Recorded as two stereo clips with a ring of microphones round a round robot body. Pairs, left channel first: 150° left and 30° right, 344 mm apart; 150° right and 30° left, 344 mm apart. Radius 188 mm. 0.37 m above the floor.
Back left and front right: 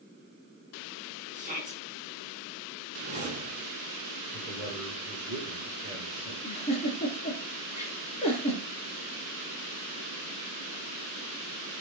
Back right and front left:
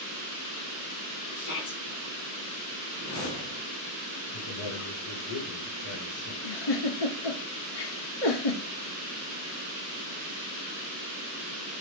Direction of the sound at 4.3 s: 110° right.